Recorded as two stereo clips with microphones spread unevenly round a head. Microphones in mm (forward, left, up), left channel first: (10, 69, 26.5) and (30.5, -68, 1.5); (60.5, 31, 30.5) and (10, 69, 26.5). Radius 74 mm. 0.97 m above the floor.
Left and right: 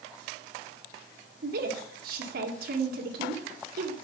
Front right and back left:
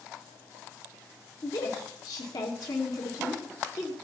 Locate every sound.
1.4 s a woman speaking: 90° right, 2 m